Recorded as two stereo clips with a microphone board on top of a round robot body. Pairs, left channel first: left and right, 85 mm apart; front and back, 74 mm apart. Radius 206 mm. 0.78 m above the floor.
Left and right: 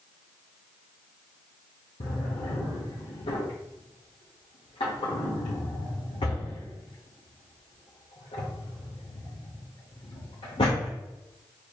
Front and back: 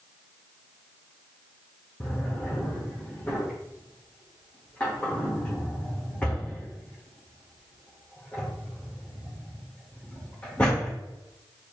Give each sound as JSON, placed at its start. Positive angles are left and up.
{"t": 2.0, "sound": "a drawer", "azimuth_deg": 75, "distance_m": 0.6}